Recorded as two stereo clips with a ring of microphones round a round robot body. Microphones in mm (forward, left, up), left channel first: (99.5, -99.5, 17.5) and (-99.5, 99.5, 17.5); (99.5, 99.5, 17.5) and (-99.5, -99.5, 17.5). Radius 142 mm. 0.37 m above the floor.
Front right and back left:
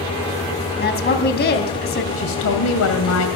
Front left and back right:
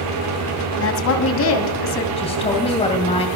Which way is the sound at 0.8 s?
10° left.